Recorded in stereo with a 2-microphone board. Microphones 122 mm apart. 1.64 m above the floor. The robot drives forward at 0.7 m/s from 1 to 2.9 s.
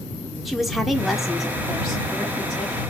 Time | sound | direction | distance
0.5 | a woman speaking | centre (ahead or behind) | 0.5 m